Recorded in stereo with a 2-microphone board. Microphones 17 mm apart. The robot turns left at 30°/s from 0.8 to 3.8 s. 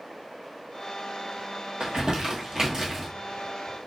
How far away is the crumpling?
About 1.1 m.